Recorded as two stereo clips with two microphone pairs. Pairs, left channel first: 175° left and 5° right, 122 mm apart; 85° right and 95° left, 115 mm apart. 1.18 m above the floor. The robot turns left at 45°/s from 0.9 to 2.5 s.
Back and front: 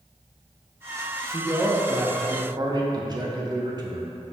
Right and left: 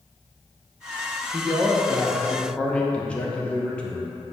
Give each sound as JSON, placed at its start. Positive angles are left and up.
{"t": 1.3, "sound": "a man speaking", "azimuth_deg": 40, "distance_m": 0.6}